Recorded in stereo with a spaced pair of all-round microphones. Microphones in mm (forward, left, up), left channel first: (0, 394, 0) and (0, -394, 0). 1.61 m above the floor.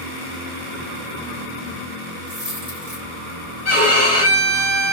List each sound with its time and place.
2.3 s a dropped coin: 30° right (ahead or behind), 2 m
3.6 s a violin: 50° right (ahead or behind), 3.5 m